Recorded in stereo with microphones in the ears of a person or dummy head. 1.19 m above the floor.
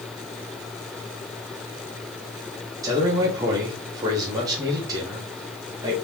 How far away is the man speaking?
About 0.9 m.